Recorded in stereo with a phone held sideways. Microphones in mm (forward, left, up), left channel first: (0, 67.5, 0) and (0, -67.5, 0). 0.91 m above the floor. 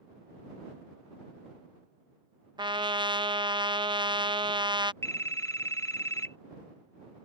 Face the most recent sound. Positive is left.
turn(degrees=20)  # may be behind; listen again after turning